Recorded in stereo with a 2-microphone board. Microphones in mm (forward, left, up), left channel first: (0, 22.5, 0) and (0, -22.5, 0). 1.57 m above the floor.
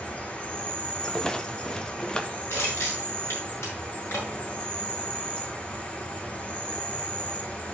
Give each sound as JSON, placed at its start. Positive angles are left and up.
{"t": 0.0, "sound": "an insect", "side_deg": 25, "distance_m": 2.0}
{"t": 1.0, "sound": "a rattle", "side_deg": 20, "distance_m": 0.8}
{"t": 2.5, "sound": "crushing", "side_deg": 75, "distance_m": 4.5}